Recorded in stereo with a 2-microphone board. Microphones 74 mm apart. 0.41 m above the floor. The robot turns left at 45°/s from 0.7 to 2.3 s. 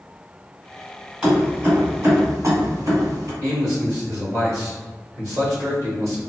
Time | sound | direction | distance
1.2 | keys jangling | 15° right (ahead or behind) | 1.6 m
3.4 | a man speaking | 50° right (ahead or behind) | 1.8 m